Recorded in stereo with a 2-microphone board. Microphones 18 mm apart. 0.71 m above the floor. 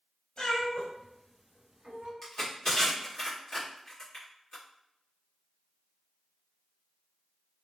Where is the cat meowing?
45° left (ahead or behind), 0.8 m; by 2.1 s 55° right (ahead or behind), 0.8 m.